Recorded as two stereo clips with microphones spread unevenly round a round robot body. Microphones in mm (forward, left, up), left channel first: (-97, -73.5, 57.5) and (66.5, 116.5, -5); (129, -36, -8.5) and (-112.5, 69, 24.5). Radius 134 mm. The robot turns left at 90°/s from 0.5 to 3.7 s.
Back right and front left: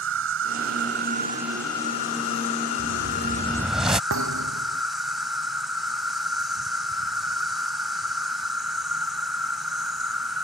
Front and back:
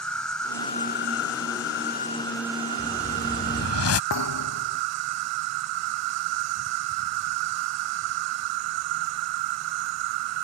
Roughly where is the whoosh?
Ahead left.